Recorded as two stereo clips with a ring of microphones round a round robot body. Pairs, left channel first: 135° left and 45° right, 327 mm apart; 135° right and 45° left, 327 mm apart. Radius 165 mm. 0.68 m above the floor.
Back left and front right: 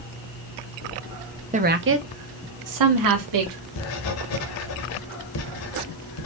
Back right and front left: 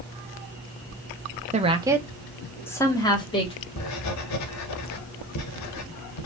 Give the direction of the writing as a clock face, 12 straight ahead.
6 o'clock.